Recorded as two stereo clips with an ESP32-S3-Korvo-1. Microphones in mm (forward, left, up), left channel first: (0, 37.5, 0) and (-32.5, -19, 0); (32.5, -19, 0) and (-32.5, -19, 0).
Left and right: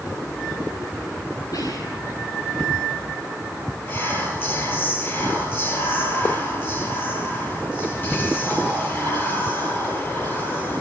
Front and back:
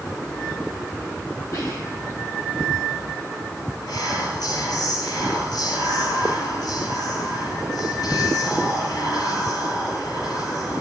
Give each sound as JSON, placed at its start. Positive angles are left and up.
{"t": 1.5, "sound": "whispering", "azimuth_deg": 40, "distance_m": 9.5}
{"t": 3.9, "sound": "whispering", "azimuth_deg": 5, "distance_m": 9.5}